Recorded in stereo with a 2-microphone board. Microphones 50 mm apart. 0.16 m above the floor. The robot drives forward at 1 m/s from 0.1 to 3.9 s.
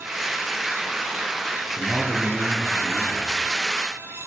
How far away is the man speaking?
About 2.5 m.